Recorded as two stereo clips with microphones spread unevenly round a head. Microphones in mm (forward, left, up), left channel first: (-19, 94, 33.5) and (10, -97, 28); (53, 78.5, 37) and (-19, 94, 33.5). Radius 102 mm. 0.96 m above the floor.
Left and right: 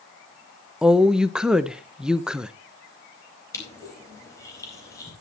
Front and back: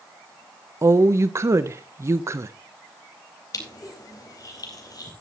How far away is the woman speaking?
About 0.7 m.